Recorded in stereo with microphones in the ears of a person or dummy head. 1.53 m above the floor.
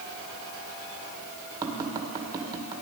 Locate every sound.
1.6 s tapping: 25° right (ahead or behind), 2.0 m